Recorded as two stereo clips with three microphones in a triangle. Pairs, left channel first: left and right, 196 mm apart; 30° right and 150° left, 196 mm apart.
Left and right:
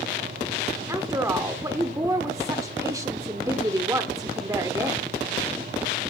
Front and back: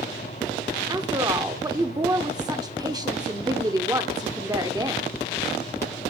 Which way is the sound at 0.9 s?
150° right.